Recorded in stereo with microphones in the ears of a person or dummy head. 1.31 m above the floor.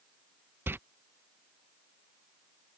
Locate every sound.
0.7 s a door slam: 5° right (ahead or behind)